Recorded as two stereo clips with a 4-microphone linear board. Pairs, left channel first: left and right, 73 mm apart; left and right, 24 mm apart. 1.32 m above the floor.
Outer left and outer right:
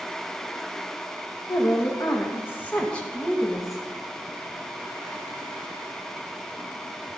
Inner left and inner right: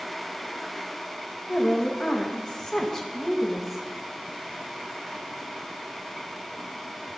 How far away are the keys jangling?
No keys jangling in this recording.